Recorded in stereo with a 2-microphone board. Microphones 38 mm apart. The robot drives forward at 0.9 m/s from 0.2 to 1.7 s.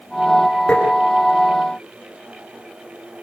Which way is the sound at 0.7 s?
20° left (ahead or behind).